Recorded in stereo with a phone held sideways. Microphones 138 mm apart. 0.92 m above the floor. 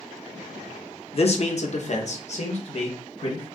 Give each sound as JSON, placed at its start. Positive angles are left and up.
{"t": 1.1, "sound": "a man speaking", "side_deg": 45, "distance_m": 0.8}